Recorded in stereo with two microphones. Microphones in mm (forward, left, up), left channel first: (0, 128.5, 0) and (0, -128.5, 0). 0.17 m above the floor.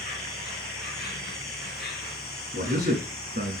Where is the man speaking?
35° right (ahead or behind), 1.4 m.